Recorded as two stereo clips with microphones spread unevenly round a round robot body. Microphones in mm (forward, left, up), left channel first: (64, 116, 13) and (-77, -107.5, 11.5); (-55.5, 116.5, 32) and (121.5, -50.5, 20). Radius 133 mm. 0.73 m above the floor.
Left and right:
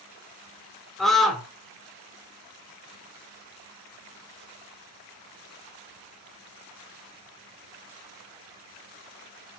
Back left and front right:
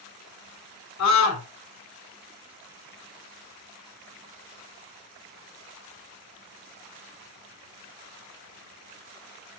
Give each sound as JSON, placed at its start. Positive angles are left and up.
{"t": 1.0, "sound": "a scream", "azimuth_deg": 145, "distance_m": 2.5}